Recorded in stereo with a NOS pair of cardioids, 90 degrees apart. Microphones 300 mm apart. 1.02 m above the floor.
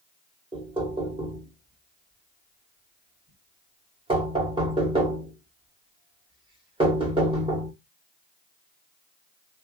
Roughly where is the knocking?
Ahead.